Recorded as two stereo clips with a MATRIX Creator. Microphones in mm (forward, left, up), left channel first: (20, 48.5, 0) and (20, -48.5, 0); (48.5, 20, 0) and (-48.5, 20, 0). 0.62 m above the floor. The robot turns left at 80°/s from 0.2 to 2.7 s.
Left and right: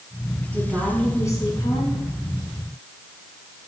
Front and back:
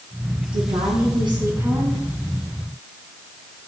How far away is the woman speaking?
About 6 m.